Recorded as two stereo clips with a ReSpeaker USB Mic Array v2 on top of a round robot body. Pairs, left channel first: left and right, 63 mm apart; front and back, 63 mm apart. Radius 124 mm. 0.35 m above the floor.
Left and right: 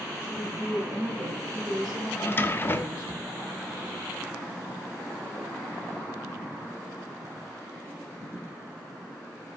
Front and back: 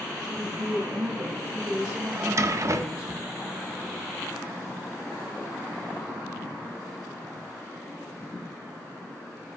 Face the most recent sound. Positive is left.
turn(degrees=145)